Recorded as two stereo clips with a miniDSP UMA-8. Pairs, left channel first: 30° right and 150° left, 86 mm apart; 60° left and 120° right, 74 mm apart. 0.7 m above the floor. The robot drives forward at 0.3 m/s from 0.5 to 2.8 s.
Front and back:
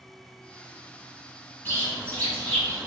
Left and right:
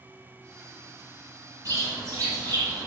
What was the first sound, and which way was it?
A bird, 90° right.